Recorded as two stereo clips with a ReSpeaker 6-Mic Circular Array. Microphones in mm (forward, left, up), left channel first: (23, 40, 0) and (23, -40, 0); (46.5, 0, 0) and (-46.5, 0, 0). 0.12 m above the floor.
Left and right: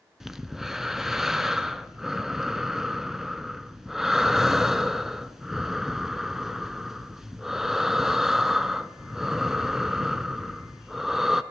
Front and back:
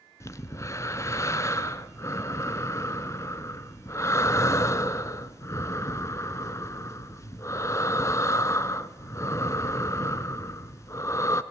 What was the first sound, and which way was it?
Breathing, 10° right.